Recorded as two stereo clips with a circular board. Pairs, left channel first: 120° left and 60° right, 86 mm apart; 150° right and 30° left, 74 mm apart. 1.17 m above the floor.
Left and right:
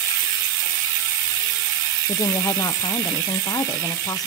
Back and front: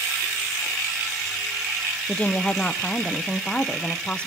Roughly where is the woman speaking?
Behind left.